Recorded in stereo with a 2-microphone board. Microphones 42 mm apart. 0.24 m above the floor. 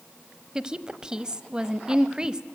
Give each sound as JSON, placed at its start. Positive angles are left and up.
{"t": 0.6, "sound": "a woman speaking", "side_deg": -20, "distance_m": 0.9}